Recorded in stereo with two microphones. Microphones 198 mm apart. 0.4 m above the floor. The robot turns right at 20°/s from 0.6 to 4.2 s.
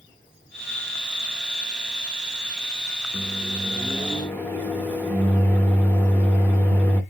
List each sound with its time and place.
3.1 s a microwave: centre (ahead or behind), 0.8 m; by 7.0 s 10° left (ahead or behind), 0.8 m